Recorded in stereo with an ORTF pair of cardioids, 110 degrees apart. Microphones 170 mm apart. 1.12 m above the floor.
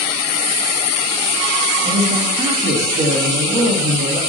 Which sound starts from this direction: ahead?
A man speaking, at 1.8 s.